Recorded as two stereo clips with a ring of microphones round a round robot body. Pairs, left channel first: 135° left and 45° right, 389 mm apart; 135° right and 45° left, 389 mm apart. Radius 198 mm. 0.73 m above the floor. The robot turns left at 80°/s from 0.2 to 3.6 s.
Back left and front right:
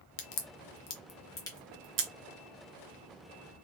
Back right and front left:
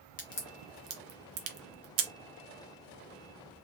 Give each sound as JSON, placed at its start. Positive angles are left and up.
{"t": 0.2, "sound": "a crack", "azimuth_deg": 155, "distance_m": 0.8}